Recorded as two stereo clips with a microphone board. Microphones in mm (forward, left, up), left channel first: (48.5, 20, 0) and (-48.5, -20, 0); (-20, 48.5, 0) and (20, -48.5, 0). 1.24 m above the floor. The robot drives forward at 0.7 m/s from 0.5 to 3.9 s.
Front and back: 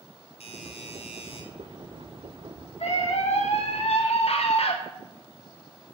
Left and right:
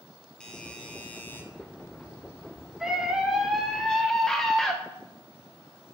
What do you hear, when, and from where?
0.4 s a doorbell: 30° left, 2.5 m; by 1.4 s 45° left, 1.9 m
2.8 s a scream: 15° left, 1.9 m; by 4.8 s 30° left, 1.2 m